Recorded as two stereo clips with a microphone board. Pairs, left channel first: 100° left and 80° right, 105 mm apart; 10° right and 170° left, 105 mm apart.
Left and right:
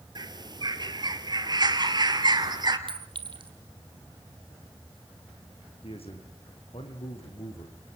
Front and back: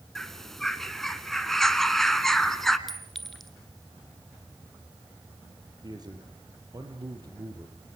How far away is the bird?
About 1.4 m.